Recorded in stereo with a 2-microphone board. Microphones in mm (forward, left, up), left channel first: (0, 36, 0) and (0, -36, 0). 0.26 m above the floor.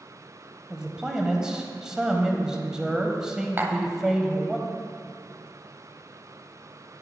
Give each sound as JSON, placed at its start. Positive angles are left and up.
{"t": 0.7, "sound": "a man speaking", "side_deg": -10, "distance_m": 1.1}
{"t": 3.6, "sound": "tapping", "side_deg": -30, "distance_m": 0.8}